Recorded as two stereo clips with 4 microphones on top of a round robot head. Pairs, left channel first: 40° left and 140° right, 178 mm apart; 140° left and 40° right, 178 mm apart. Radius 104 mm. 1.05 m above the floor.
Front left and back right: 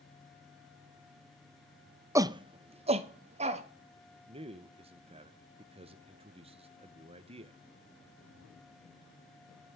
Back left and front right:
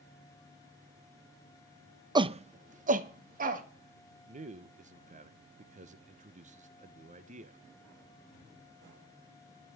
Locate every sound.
2.1 s a shout: 80° right, 0.5 m; by 3.6 s 85° right, 1.9 m
4.3 s a man speaking: 85° right, 0.9 m